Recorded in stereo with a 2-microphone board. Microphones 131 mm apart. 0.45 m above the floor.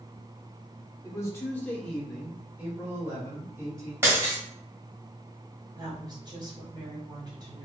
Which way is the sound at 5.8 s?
35° right (ahead or behind).